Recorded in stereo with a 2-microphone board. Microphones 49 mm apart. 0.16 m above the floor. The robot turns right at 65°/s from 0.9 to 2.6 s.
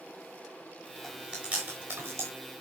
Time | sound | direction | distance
1.0 | chewing | centre (ahead or behind) | 5 m